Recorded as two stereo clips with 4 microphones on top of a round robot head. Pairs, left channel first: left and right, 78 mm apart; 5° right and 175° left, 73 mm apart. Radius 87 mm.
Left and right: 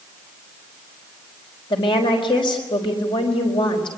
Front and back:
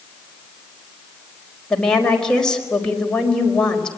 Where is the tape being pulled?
No tape being pulled in this recording.